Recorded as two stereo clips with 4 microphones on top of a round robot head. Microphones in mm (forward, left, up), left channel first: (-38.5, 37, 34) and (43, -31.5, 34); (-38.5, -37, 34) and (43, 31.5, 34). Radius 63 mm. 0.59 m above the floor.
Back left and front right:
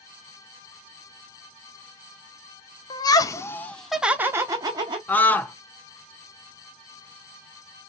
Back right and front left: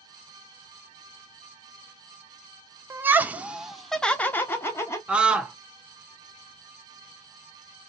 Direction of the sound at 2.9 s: 105° left.